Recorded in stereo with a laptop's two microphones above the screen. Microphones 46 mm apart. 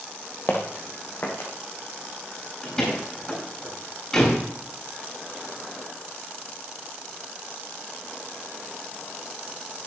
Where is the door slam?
15° left (ahead or behind), 8.5 m.